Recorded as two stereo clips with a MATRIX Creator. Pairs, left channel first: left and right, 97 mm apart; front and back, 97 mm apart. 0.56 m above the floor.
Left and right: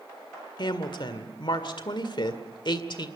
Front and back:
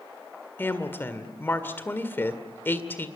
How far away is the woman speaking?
About 1.9 m.